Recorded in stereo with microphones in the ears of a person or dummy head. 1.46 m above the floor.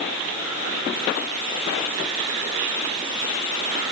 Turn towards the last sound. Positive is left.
No sound to turn to.